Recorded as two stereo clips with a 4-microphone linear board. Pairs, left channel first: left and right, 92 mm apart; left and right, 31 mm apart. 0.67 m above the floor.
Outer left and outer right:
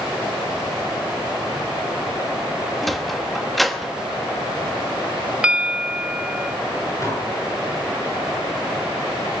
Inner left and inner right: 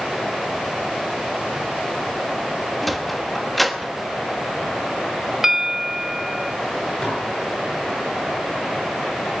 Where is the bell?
15° right (ahead or behind), 0.7 m.